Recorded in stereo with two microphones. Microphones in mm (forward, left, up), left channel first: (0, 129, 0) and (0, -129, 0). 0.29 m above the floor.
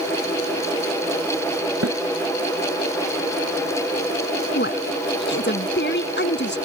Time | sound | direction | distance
1.8 | a snare drum | 65° right (ahead or behind) | ?
4.5 | a woman speaking | 45° left (ahead or behind) | ?